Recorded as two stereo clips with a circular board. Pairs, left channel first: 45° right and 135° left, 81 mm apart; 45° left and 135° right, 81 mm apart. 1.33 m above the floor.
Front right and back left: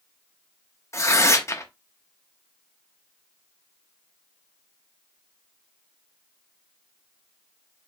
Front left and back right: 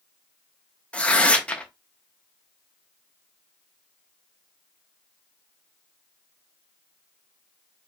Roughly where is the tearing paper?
Ahead right.